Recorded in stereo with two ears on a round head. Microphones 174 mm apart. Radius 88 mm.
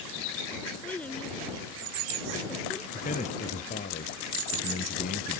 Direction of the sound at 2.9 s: 40° left (ahead or behind).